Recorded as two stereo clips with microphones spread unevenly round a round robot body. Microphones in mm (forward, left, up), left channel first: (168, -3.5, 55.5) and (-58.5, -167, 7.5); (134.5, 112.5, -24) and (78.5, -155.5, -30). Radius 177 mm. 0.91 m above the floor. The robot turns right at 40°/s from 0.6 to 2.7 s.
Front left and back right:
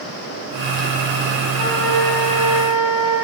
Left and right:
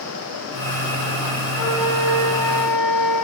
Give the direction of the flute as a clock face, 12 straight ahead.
11 o'clock.